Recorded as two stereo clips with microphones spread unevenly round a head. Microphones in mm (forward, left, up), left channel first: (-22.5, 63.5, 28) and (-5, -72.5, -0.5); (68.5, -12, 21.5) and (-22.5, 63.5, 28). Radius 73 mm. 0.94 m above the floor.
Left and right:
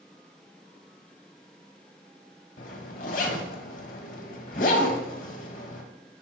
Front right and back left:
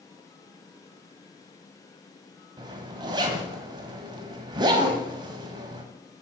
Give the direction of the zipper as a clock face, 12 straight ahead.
9 o'clock.